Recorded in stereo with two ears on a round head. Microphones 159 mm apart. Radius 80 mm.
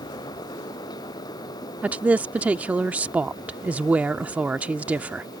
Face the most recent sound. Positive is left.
turn(degrees=-10)  # may be behind; listen again after turning